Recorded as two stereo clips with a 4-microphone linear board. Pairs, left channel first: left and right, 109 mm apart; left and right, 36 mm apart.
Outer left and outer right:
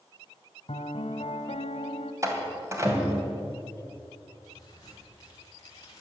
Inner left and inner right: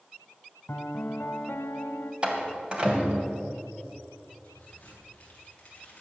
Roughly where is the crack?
Left.